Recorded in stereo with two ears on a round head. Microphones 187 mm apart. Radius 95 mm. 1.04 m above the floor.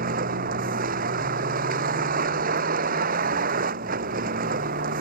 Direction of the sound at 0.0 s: 40° right (ahead or behind).